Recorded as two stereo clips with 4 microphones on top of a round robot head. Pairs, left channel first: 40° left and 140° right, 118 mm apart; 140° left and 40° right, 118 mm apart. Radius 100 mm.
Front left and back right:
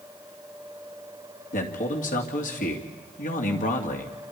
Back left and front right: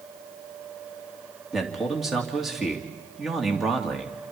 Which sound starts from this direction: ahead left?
A man speaking, at 1.5 s.